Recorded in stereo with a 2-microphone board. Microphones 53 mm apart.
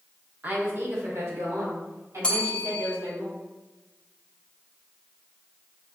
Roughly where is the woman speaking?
Right.